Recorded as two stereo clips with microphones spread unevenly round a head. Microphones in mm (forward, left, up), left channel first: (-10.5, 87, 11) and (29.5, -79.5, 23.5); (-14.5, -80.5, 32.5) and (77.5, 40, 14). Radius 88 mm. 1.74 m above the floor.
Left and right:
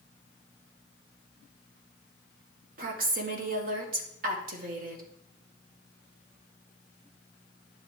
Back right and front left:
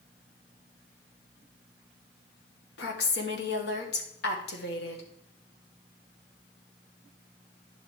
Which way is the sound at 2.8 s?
120° right.